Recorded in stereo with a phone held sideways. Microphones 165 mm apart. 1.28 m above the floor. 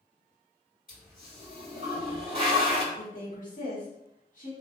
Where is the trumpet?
I don't hear a trumpet.